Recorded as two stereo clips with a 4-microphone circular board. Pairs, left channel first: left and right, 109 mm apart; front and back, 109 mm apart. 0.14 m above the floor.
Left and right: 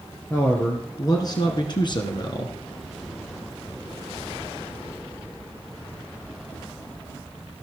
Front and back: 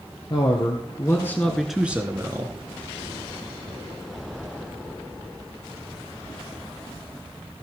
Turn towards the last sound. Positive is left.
turn(degrees=130)